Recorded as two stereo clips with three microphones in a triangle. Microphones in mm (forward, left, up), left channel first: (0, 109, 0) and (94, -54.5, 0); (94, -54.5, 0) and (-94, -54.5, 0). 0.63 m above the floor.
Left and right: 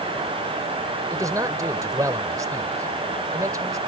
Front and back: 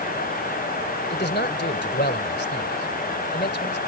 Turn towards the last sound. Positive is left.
turn(degrees=10)